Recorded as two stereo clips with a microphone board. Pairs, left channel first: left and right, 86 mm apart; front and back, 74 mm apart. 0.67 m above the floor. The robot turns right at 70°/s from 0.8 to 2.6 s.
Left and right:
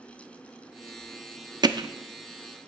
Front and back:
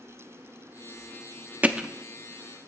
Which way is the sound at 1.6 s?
110° right.